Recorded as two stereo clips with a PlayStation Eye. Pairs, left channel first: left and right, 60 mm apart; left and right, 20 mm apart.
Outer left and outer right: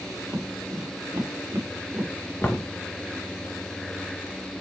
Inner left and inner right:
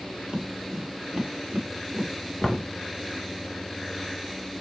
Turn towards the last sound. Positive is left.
turn(degrees=30)  # may be behind; listen again after turning